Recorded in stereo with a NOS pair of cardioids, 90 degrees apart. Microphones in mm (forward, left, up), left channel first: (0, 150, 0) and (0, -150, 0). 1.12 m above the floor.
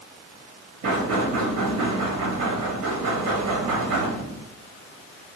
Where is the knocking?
50° right, 1.5 m.